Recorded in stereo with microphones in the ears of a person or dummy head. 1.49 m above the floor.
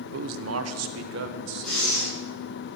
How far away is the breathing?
About 8 m.